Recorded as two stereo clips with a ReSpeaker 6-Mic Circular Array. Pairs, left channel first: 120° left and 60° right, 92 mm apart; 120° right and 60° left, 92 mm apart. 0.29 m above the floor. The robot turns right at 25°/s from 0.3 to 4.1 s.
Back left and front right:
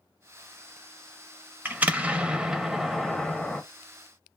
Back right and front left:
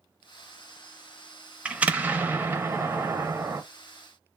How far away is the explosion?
About 0.5 m.